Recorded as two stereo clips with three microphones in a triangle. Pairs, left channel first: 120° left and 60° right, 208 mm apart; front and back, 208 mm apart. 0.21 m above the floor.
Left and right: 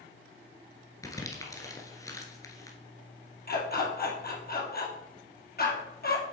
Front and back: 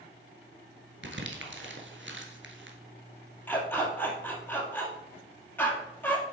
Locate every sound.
1.0 s crumpling: 165° right, 1.4 m
3.5 s a dog barking: 80° left, 2 m